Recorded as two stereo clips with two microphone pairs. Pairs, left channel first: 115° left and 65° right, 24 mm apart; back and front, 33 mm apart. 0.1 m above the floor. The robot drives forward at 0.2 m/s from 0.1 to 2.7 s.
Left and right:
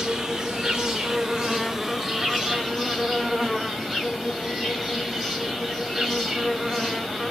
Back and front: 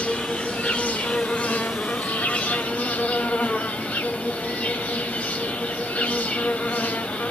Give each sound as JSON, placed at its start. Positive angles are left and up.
{"t": 0.0, "sound": "an insect", "azimuth_deg": -130, "distance_m": 0.9}